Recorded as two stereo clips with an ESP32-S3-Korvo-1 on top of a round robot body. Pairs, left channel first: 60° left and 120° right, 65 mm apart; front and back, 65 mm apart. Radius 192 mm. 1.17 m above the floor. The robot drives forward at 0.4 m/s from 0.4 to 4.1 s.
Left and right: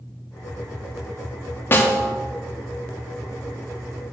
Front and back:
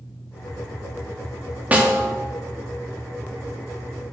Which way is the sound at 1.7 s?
115° left.